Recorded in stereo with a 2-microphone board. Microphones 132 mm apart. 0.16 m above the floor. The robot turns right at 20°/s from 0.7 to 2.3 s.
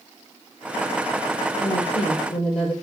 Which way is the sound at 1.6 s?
60° left (ahead or behind).